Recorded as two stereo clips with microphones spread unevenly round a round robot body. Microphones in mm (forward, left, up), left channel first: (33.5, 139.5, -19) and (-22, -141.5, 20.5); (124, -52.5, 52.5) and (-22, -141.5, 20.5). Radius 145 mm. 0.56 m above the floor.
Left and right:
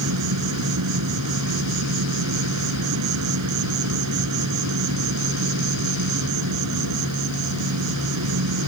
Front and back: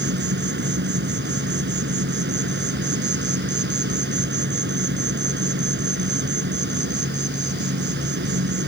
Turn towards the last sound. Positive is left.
turn(degrees=-140)